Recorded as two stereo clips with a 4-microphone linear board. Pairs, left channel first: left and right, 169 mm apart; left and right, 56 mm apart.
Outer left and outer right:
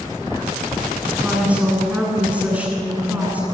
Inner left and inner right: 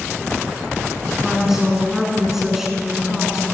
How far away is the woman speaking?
About 9.5 m.